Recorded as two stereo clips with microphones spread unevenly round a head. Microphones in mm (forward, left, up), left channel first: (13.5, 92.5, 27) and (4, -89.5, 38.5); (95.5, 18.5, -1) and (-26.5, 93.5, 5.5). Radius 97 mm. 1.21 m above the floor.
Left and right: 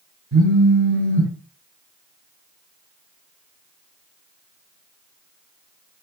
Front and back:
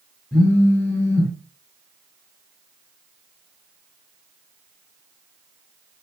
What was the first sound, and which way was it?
A phone buzzing, 115° right.